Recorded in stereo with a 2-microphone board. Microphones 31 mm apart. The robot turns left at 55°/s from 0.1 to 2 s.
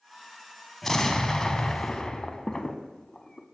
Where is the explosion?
10° left (ahead or behind), 0.6 m; by 3.5 s 25° left (ahead or behind), 0.6 m.